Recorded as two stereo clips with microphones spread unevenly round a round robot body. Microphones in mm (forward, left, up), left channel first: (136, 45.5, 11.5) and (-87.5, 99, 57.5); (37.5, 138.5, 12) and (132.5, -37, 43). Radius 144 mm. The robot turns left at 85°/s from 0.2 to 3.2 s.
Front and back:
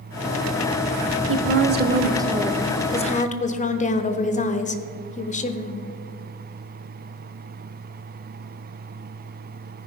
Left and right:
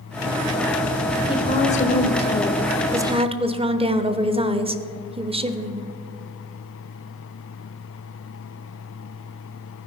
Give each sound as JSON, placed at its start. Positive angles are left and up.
{"t": 1.3, "sound": "a woman speaking", "azimuth_deg": 165, "distance_m": 1.0}